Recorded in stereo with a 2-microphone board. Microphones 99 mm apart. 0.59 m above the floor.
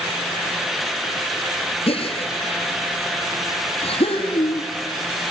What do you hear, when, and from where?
1.9 s a gasp: 75° left (ahead or behind), 3.5 m